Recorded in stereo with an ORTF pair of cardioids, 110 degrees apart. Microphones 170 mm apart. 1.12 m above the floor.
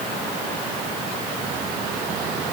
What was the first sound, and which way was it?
Only background noise.